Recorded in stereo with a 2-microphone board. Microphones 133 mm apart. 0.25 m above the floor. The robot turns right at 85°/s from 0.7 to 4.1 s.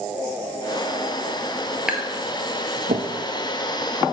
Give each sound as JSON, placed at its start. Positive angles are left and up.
{"t": 1.9, "sound": "tapping", "side_deg": -5, "distance_m": 1.3}